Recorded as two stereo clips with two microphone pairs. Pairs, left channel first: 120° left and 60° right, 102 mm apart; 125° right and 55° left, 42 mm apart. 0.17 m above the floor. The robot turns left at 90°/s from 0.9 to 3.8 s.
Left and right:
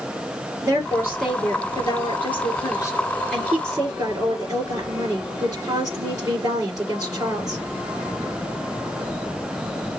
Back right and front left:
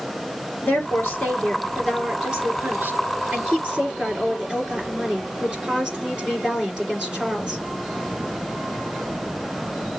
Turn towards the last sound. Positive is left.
turn(degrees=-15)